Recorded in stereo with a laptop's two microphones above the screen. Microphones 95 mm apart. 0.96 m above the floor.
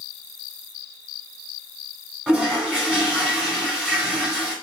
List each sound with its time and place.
2.3 s a toilet flushing: 5° right (ahead or behind), 1.5 m